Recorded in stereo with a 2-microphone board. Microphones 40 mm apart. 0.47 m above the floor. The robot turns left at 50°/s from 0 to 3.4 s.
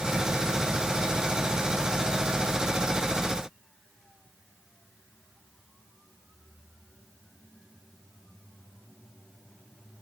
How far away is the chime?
No chime in this recording.